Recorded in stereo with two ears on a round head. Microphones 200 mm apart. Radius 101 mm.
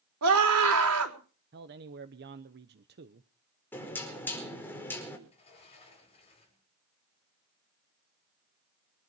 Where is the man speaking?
50° right (ahead or behind), 0.9 m.